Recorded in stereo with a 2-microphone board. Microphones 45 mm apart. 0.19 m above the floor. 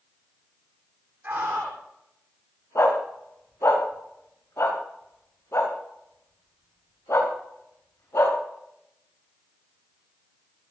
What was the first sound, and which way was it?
A scream, 45° right (ahead or behind).